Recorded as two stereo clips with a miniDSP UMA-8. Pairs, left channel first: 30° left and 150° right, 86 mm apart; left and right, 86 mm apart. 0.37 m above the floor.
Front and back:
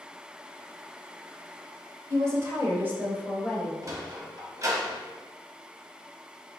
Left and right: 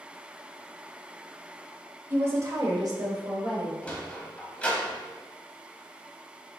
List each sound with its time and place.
2.1 s a woman speaking: 135° right, 0.9 m; by 3.7 s 75° right, 1.4 m
3.8 s a sliding door: 165° left, 1.1 m